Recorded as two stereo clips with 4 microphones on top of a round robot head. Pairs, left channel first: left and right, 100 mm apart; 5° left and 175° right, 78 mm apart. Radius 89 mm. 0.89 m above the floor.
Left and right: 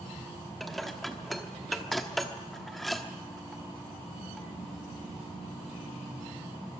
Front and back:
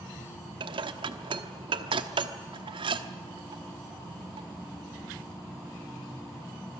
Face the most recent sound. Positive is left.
turn(degrees=180)